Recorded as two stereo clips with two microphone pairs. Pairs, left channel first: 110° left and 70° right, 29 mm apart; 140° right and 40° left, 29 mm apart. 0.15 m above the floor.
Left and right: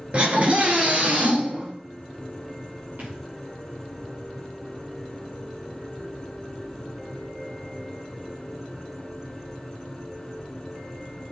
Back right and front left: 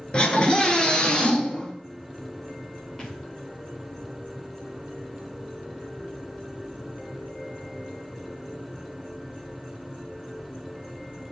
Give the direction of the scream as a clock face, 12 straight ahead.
3 o'clock.